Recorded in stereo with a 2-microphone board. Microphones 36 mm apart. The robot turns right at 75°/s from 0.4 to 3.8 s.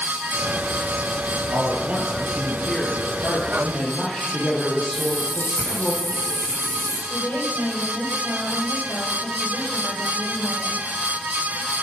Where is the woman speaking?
70° left (ahead or behind), 8.5 m.